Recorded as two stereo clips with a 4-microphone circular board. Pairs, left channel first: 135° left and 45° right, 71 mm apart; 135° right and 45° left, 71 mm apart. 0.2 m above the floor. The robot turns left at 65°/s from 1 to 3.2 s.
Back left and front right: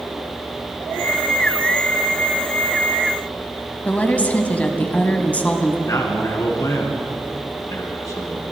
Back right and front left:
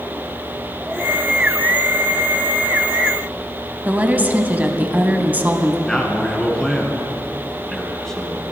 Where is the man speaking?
145° left, 2.5 m.